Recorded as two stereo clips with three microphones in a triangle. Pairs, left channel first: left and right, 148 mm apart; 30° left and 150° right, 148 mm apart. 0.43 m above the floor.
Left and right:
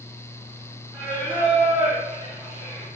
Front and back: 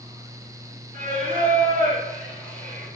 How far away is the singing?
About 2 m.